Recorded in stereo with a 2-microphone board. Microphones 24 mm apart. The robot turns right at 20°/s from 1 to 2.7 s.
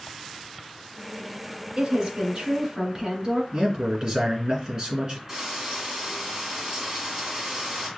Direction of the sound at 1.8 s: 40° right (ahead or behind).